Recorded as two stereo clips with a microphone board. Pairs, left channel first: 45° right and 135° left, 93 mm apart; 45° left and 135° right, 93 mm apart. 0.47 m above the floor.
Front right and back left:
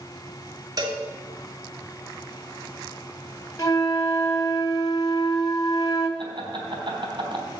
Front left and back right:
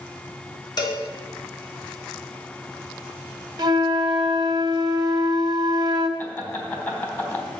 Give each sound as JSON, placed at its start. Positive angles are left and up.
{"t": 0.8, "sound": "a cowbell", "azimuth_deg": 85, "distance_m": 2.5}
{"t": 3.6, "sound": "a flute", "azimuth_deg": -95, "distance_m": 1.4}
{"t": 6.2, "sound": "laughter", "azimuth_deg": 105, "distance_m": 3.5}